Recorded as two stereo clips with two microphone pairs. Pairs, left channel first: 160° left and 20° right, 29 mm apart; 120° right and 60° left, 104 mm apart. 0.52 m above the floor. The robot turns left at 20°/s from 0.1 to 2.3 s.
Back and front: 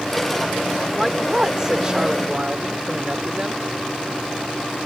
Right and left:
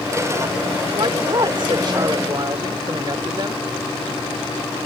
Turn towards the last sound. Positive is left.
turn(degrees=25)